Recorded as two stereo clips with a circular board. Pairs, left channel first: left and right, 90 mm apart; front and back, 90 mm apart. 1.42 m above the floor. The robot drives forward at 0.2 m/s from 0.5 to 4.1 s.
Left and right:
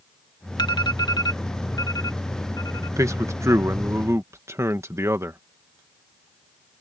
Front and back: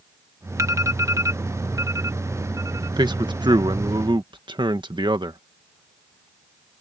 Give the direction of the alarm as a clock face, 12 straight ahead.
8 o'clock.